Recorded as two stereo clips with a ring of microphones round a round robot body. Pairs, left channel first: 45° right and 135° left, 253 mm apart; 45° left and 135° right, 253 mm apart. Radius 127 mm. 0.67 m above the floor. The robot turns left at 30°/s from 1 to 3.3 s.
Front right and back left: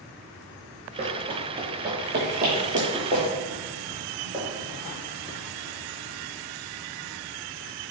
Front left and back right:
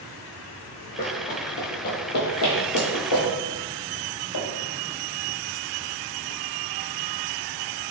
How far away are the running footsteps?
About 0.8 m.